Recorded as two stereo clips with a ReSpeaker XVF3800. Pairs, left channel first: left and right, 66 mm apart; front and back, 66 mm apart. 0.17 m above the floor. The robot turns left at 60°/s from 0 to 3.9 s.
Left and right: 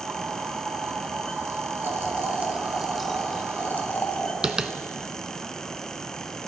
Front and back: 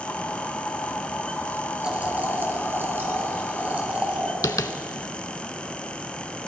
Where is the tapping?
15° right, 0.5 m.